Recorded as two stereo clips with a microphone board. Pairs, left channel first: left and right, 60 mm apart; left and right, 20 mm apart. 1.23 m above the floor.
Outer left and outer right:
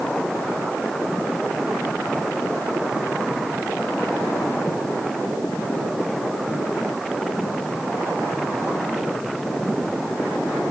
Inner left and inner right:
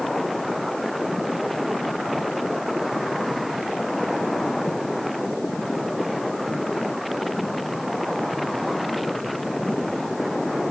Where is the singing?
I don't hear singing.